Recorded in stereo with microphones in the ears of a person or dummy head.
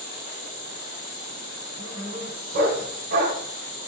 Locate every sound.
0.0 s an insect: 50° left (ahead or behind), 1.9 m
1.8 s a dog barking: 40° right (ahead or behind), 1.5 m